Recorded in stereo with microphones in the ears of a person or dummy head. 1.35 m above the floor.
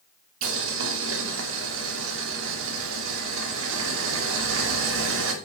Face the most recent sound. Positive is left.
turn(degrees=-75)  # may be behind; listen again after turning